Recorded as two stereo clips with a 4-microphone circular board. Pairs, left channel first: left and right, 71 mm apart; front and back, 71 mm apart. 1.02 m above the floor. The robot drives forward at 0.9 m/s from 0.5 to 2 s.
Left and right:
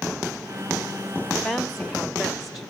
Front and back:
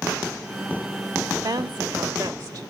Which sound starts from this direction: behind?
A woman speaking, at 1.4 s.